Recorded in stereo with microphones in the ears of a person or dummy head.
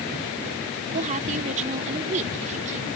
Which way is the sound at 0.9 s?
35° right (ahead or behind).